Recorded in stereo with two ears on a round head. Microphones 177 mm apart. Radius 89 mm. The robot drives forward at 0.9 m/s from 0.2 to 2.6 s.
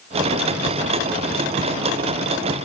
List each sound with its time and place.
Only background noise.